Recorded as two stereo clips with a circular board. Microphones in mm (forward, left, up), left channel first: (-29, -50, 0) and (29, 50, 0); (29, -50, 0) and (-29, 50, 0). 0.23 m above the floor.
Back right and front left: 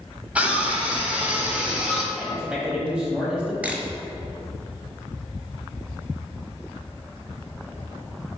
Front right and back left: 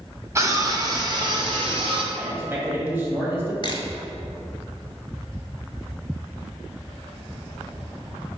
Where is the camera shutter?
15° right, 0.8 m.